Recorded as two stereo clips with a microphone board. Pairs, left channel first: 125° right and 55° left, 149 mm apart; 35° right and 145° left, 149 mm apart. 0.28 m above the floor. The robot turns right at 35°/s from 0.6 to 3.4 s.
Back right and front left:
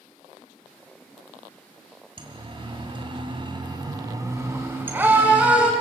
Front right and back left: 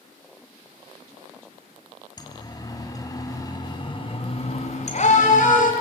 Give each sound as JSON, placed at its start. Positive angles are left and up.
{"t": 2.2, "sound": "a siren", "azimuth_deg": 15, "distance_m": 2.5}